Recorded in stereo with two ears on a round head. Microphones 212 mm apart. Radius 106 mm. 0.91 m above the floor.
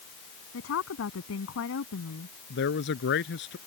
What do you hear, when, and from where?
0.5 s a woman speaking: 65° left (ahead or behind)
2.5 s a man speaking: 50° left (ahead or behind)